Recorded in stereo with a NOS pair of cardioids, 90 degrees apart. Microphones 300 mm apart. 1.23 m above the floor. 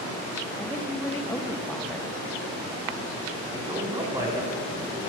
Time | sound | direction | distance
0.6 | a woman speaking | 5° left | 1.3 m
3.5 | a man speaking | 15° right | 3.5 m